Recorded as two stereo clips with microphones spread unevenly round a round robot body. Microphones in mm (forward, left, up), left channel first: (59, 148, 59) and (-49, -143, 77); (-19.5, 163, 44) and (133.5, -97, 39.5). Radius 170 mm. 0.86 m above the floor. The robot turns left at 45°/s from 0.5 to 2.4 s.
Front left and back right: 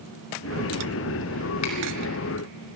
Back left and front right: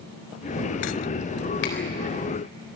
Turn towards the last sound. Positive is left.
turn(degrees=70)